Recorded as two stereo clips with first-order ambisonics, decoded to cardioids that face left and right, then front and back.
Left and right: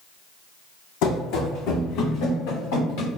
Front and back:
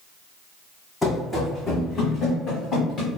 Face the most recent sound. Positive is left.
turn(degrees=65)